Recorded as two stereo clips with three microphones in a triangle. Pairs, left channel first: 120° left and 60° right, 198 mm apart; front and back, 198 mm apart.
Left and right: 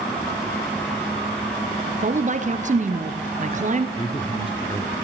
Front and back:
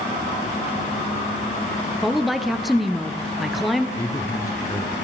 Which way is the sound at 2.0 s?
90° right.